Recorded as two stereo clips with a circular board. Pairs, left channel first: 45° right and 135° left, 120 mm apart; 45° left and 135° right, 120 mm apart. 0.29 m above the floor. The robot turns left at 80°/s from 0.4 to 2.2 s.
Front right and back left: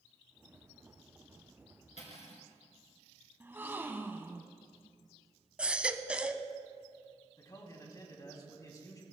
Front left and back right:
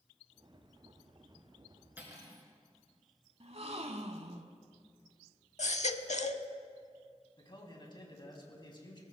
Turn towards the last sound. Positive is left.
turn(degrees=5)